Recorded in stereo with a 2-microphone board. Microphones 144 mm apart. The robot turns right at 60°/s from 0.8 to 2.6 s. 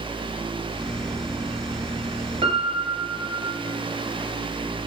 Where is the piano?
40° right (ahead or behind), 0.8 m; by 3.6 s 45° right (ahead or behind), 0.8 m.